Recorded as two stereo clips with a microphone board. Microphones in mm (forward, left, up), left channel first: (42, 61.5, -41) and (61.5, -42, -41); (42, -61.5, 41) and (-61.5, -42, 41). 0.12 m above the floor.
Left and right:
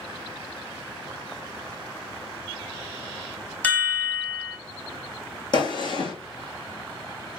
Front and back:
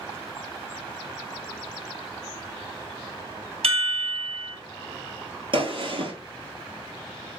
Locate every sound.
3.6 s a chime: 175° left, 1.1 m
5.5 s a gunshot: 140° left, 1.7 m